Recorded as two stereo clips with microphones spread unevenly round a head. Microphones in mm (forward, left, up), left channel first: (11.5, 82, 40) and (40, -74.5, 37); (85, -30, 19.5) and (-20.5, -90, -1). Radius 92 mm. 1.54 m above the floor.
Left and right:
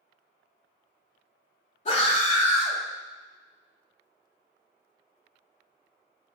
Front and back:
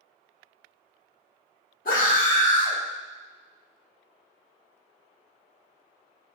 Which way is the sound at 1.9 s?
55° left.